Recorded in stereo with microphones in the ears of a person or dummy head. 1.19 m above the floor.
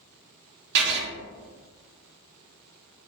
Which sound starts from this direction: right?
Writing, at 0.8 s.